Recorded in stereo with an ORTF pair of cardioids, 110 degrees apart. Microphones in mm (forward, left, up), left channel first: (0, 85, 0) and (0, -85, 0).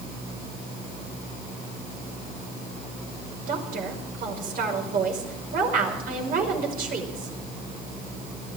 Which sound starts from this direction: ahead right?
A woman speaking, at 3.5 s.